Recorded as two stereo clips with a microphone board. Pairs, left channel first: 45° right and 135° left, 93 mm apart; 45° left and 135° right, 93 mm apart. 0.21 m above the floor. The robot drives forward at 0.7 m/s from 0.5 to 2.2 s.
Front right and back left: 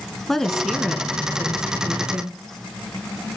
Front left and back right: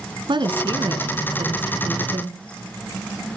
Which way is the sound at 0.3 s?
130° right.